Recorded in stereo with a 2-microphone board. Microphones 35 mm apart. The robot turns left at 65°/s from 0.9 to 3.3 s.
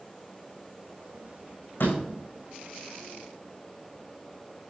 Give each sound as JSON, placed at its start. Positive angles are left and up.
{"t": 1.8, "sound": "a door slam", "side_deg": 70, "distance_m": 8.0}